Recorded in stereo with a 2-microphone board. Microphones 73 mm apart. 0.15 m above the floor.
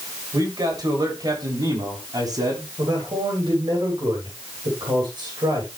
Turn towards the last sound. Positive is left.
turn(degrees=-75)  # may be behind; listen again after turning